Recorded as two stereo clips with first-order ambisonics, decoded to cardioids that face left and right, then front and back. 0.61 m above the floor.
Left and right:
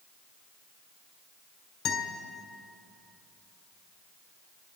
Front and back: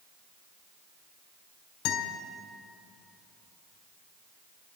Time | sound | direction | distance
1.9 | a guitar | 40° left | 2 m